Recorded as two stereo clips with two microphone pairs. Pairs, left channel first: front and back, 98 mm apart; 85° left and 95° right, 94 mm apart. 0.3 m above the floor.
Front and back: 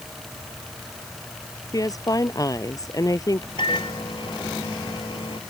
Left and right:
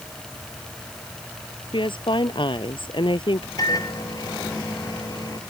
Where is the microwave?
35° left.